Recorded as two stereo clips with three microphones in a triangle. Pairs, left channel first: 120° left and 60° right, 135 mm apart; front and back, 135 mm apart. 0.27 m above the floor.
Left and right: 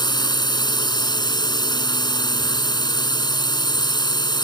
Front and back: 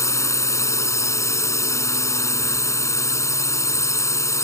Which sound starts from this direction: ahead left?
A drone, at 0.0 s.